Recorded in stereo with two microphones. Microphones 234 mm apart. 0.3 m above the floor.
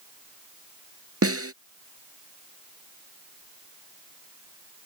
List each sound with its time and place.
1.2 s a snare drum: 80° right